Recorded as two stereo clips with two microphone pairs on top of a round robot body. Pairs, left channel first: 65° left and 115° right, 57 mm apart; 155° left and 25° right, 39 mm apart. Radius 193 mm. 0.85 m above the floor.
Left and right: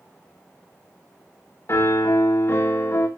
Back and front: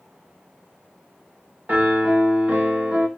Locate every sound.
1.7 s a piano: 25° left, 1.9 m